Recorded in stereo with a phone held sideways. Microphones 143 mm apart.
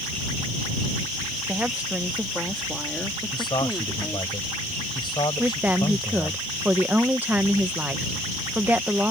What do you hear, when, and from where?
1.5 s a woman speaking: 10° right (ahead or behind); by 4.3 s 15° left (ahead or behind)
3.3 s a man speaking: 35° left (ahead or behind)
5.4 s a woman speaking: 10° right (ahead or behind)